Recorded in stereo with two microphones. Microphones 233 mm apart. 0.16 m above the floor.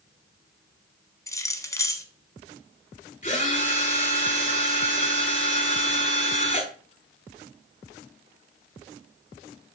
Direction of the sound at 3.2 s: 35° left (ahead or behind).